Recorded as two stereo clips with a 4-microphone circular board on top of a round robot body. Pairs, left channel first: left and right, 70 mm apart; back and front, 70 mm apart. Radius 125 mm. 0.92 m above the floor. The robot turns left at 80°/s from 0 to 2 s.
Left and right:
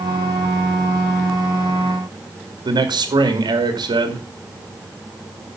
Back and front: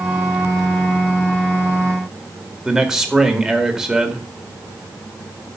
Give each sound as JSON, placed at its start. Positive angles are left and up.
{"t": 2.6, "sound": "a man speaking", "azimuth_deg": -85, "distance_m": 2.0}